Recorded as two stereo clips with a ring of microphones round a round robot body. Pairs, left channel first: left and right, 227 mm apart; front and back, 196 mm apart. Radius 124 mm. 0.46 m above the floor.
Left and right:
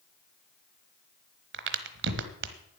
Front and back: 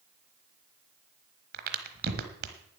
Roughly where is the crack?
Behind right.